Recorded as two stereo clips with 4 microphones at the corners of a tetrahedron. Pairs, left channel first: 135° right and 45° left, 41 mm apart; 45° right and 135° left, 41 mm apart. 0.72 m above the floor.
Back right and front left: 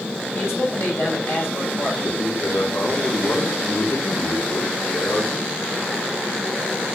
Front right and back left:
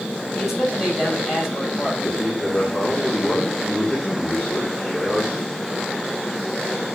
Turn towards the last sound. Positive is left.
turn(degrees=-130)